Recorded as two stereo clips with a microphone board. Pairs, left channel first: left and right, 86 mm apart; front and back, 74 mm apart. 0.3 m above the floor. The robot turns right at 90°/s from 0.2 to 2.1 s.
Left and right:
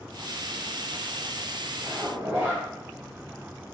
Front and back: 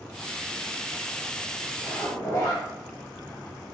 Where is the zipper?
55° right, 1.0 m; by 2.6 s 30° right, 1.0 m.